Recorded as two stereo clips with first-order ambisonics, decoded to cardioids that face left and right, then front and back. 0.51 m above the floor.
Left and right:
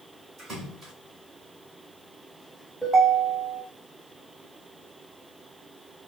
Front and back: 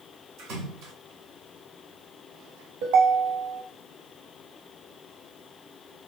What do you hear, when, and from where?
0.4 s a splash: 170° right, 1.5 m
2.8 s a ringtone: 175° right, 1.3 m